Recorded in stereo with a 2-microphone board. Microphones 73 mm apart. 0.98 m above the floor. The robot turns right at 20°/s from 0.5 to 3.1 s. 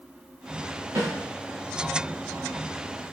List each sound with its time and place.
0.9 s a snare drum: 60° right (ahead or behind), 1.4 m